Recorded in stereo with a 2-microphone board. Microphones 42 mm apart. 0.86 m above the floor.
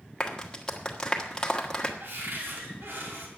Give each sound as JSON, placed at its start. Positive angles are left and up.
{"t": 0.2, "sound": "a clap", "side_deg": 20, "distance_m": 1.4}
{"t": 2.0, "sound": "a cupboard door", "side_deg": -60, "distance_m": 2.5}